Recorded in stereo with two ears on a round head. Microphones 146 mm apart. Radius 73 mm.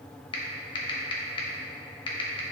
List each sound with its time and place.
0.3 s typing on a keyboard: 35° left (ahead or behind), 1.3 m